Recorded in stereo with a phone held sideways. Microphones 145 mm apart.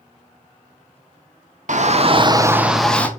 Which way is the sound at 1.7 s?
60° right (ahead or behind).